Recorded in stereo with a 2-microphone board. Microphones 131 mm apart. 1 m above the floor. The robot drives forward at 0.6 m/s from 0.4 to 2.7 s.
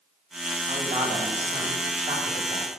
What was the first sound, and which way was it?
A man speaking, 60° right (ahead or behind).